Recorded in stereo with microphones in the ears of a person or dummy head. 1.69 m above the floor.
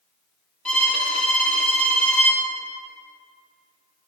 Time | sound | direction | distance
0.7 | a violin | 5° left (ahead or behind) | 0.7 m